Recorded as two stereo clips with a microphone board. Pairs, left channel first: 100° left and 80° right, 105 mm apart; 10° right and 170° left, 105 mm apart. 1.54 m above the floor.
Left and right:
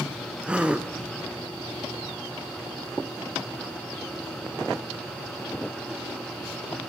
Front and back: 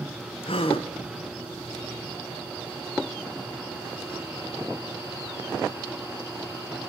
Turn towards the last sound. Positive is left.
turn(degrees=0)